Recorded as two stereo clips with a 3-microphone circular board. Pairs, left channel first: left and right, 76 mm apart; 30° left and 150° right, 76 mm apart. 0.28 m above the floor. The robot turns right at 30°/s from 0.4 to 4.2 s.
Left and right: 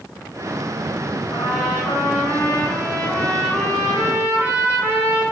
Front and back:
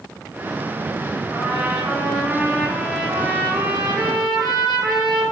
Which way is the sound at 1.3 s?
130° left.